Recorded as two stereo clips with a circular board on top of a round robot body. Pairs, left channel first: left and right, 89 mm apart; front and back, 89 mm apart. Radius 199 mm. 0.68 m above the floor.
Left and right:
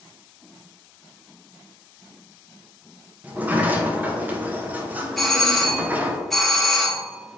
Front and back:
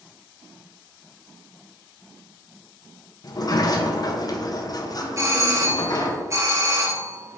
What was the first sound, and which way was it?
A sliding door, 25° right.